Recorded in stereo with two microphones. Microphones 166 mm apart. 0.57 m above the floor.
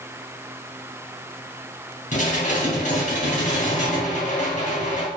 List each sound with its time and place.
2.1 s dishes clattering: 50° left (ahead or behind), 3 m